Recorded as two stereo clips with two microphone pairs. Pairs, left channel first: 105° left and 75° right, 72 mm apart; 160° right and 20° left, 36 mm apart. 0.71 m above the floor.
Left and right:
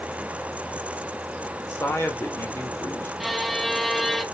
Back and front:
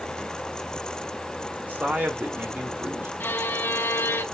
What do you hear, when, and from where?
1.6 s a man speaking: 50° left, 1.8 m
3.2 s a violin: 165° right, 0.6 m